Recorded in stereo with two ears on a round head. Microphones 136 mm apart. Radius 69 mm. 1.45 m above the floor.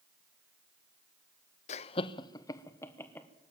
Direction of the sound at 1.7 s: 45° left (ahead or behind).